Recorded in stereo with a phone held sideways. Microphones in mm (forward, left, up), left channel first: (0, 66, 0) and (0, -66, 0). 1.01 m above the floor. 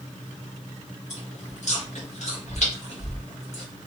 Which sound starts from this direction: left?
Chewing, at 1.1 s.